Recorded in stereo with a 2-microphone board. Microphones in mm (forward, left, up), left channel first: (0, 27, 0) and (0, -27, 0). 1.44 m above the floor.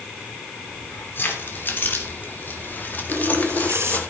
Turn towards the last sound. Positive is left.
turn(degrees=-55)  # may be behind; listen again after turning